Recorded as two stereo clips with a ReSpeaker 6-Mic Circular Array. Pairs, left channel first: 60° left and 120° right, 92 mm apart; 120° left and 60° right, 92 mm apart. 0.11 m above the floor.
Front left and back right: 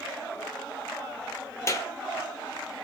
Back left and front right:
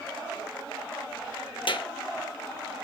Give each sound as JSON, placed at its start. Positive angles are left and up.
{"t": 1.7, "sound": "a clap", "azimuth_deg": 115, "distance_m": 2.0}